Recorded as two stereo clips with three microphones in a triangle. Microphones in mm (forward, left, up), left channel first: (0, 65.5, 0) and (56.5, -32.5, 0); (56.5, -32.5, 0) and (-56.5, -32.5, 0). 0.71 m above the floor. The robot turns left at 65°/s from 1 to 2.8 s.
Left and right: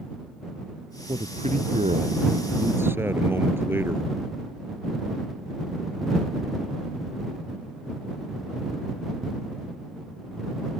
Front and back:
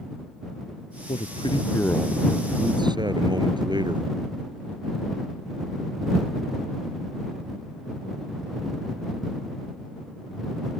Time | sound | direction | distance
1.1 | a man speaking | 20° right | ?